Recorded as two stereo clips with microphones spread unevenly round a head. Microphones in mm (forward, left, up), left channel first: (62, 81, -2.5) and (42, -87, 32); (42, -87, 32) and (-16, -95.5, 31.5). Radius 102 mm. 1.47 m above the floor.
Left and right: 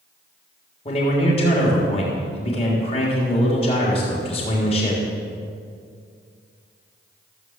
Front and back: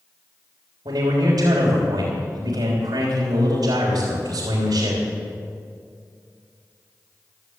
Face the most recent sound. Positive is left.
turn(degrees=145)